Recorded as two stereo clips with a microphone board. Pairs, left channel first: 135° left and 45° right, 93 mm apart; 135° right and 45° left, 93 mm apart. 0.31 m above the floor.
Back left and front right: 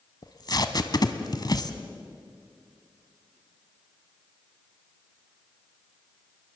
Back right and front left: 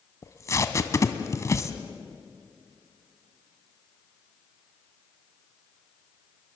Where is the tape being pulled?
170° left, 1.3 m.